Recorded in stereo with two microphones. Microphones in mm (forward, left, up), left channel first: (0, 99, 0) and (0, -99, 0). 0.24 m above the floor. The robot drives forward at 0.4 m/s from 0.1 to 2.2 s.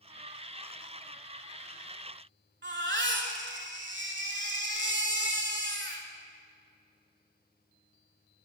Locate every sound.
2.6 s a baby crying: 65° right (ahead or behind), 0.8 m